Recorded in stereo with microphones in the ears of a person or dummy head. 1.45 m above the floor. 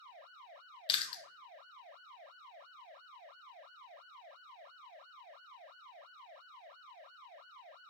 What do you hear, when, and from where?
0.9 s chewing: 30° left (ahead or behind), 0.8 m